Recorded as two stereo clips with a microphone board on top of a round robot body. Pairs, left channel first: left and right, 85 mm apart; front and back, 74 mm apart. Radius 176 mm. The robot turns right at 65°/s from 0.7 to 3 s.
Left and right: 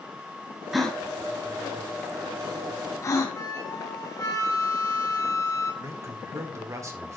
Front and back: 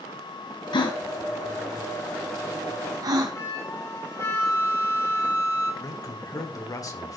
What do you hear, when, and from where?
0.7 s a gasp: 5° right, 1.6 m; by 3.4 s 145° left, 1.6 m
3.3 s a flute: 45° left, 4 m
5.8 s a man speaking: 35° right, 2.5 m